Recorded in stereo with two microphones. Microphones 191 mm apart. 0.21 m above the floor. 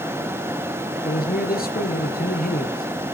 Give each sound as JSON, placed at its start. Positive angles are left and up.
{"t": 1.0, "sound": "a man speaking", "side_deg": 50, "distance_m": 3.0}